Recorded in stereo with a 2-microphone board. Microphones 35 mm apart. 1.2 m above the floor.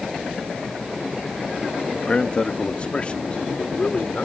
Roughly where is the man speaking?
Left.